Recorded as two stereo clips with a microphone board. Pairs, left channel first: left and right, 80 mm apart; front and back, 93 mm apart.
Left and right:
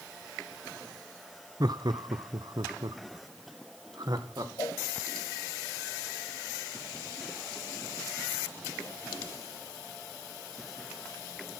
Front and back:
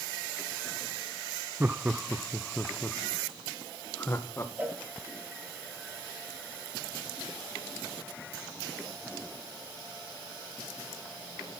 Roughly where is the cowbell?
Left.